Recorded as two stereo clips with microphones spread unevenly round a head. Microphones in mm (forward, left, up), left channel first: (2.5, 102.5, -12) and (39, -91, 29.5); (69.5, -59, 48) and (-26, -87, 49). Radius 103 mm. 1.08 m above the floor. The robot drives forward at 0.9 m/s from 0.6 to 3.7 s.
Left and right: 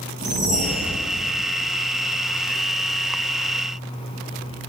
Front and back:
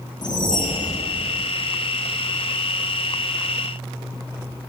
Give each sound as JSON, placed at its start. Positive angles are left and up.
{"t": 0.2, "sound": "a whoosh", "azimuth_deg": -25, "distance_m": 1.3}